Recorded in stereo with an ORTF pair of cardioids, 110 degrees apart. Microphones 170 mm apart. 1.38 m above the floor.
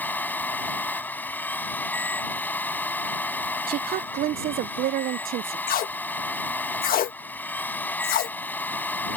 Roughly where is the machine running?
Ahead.